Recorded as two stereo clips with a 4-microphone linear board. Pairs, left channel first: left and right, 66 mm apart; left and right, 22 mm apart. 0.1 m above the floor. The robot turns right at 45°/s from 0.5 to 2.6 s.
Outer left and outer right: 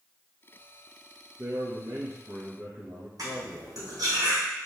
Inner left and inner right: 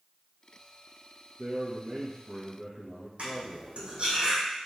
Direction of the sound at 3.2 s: 65° right (ahead or behind).